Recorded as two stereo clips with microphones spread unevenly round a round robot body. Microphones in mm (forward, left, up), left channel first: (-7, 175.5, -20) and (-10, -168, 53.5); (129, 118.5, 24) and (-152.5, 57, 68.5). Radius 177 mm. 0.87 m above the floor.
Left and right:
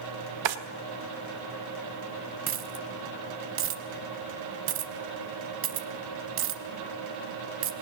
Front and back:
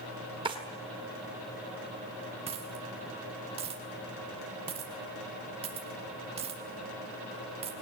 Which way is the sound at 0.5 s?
90° right.